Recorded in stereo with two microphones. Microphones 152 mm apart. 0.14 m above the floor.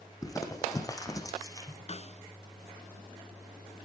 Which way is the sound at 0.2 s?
20° left (ahead or behind).